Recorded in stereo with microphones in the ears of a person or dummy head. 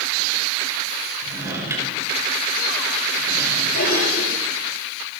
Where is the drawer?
15° right (ahead or behind), 6 m.